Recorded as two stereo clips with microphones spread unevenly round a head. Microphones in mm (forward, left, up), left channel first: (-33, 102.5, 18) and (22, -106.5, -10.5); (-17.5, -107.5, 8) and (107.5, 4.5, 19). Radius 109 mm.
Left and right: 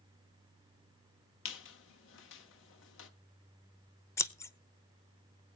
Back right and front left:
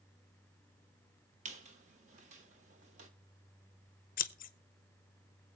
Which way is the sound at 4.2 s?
175° right.